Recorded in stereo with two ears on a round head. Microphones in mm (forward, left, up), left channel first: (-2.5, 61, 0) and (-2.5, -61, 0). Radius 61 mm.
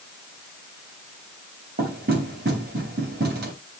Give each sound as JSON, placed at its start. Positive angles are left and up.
{"t": 1.8, "sound": "knocking", "side_deg": -85, "distance_m": 3.5}